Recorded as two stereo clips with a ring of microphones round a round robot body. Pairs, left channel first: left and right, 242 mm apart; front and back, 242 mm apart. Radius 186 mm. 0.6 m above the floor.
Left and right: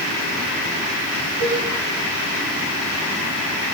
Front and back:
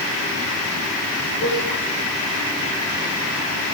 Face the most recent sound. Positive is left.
turn(degrees=-85)